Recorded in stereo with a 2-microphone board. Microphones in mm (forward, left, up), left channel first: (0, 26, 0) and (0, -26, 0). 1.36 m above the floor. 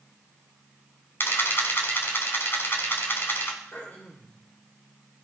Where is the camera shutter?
45° left (ahead or behind), 3 m.